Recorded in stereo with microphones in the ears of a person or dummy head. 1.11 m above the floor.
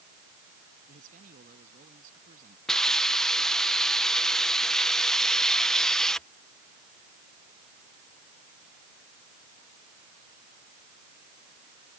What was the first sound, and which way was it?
A man speaking, 45° right (ahead or behind).